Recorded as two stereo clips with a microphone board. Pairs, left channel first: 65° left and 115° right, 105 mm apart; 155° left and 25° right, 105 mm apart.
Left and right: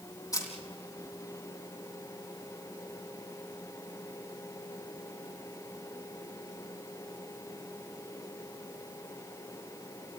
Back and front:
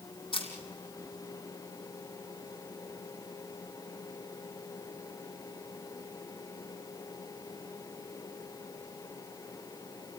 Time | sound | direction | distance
0.3 | a camera shutter | 125° left | 4.5 m